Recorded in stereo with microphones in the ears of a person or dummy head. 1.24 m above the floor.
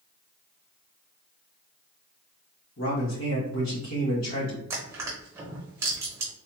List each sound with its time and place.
2.8 s a man speaking: 70° left (ahead or behind), 1.9 m
4.7 s crushing: 15° right (ahead or behind), 0.9 m